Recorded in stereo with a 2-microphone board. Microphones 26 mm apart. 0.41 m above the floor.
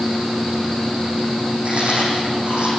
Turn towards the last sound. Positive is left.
turn(degrees=-45)  # may be behind; listen again after turning